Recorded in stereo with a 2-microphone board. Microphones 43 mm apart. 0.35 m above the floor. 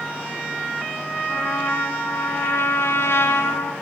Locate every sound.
1.3 s a trumpet: 80° left, 0.9 m